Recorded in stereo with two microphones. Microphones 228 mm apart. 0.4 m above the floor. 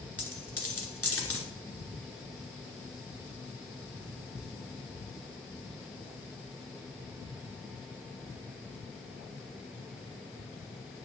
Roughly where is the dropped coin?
Left.